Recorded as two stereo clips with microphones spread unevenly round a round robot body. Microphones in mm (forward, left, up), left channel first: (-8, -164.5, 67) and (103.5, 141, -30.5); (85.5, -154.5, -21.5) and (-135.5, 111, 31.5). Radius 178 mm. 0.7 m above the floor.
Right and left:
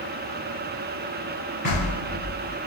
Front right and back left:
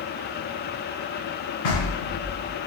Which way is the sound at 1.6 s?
35° right.